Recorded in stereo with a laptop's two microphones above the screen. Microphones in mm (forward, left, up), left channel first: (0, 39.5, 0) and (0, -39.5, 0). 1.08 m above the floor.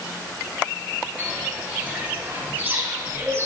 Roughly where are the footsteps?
Centre.